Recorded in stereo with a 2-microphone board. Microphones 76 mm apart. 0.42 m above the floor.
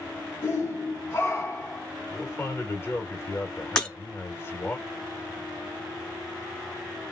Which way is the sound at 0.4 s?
30° left (ahead or behind).